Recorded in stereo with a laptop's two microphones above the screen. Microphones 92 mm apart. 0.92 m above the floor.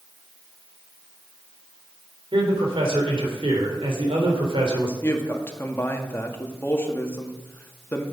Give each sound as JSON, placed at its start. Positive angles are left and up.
{"t": 2.3, "sound": "a man speaking", "side_deg": -70, "distance_m": 3.5}
{"t": 5.0, "sound": "a woman speaking", "side_deg": 25, "distance_m": 1.8}